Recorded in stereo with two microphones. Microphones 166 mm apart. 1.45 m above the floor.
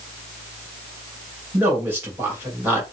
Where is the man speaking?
10° right (ahead or behind), 2.5 m.